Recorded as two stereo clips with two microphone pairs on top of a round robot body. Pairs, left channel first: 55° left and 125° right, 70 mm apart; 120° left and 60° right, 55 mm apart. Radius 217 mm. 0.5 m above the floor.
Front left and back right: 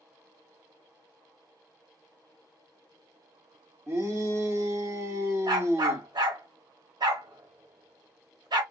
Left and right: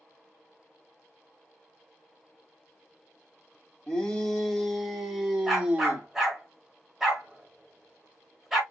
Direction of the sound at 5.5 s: 140° right.